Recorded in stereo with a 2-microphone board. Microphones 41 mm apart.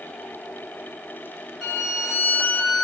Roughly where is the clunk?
I don't hear a clunk.